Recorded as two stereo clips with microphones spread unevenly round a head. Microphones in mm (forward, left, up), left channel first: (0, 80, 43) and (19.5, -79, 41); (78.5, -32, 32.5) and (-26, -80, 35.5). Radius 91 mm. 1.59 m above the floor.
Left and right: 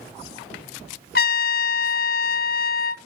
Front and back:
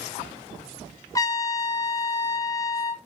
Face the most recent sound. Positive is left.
turn(degrees=90)